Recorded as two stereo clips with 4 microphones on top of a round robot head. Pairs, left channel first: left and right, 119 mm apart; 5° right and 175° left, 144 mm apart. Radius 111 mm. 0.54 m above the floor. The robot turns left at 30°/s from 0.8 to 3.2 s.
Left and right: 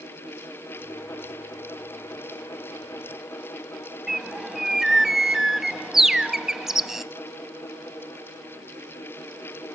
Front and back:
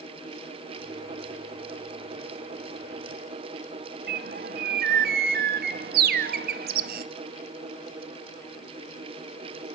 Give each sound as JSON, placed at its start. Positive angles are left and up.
{"t": 4.1, "sound": "a bird", "azimuth_deg": -175, "distance_m": 0.8}